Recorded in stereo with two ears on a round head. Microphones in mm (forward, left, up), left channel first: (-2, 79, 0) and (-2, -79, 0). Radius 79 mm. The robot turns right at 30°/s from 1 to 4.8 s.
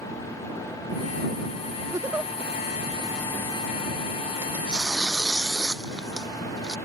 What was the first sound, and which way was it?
A giggle, 20° right (ahead or behind).